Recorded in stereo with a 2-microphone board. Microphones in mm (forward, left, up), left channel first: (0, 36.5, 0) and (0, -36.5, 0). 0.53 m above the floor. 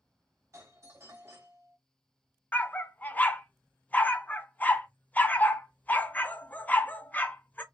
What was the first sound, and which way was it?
A doorbell, 40° right (ahead or behind).